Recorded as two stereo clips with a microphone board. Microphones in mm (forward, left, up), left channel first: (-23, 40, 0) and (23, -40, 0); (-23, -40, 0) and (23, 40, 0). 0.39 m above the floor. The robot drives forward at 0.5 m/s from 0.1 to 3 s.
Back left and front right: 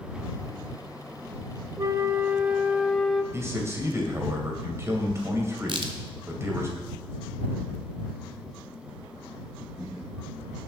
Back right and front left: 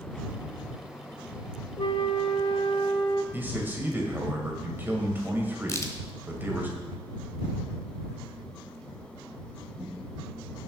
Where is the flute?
105° right, 0.6 m; by 3.2 s 145° right, 1.0 m.